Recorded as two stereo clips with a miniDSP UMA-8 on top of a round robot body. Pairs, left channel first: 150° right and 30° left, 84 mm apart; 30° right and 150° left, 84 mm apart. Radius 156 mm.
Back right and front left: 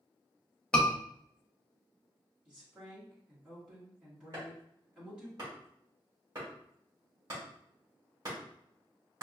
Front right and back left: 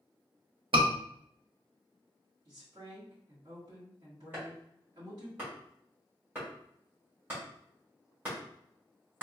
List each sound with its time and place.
0.7 s a scream: 130° left, 1.1 m
2.5 s a woman speaking: 110° left, 1.7 m
4.3 s chopping: 80° left, 2.0 m